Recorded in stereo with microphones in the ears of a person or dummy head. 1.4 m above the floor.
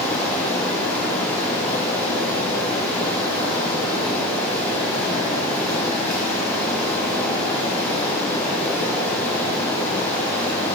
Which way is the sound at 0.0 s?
10° left (ahead or behind).